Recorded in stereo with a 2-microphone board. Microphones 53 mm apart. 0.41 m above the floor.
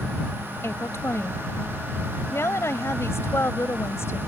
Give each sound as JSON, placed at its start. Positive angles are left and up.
{"t": 0.6, "sound": "a woman speaking", "side_deg": 60}